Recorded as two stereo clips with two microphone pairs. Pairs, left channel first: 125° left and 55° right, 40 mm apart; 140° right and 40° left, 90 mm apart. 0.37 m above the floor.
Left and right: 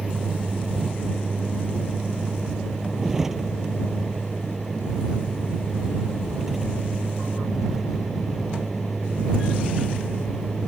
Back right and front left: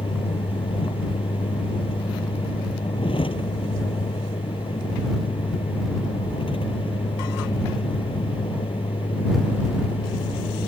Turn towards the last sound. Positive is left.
turn(degrees=-135)